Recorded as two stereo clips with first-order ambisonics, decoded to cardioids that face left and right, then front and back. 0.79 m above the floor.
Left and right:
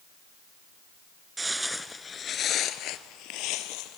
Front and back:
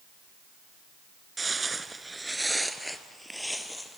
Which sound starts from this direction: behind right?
Footsteps, at 1.4 s.